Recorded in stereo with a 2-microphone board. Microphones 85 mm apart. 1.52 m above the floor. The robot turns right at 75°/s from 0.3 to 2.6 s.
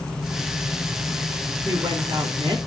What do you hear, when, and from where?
1.6 s a woman speaking: 130° right, 4 m; by 2.6 s 60° right, 4 m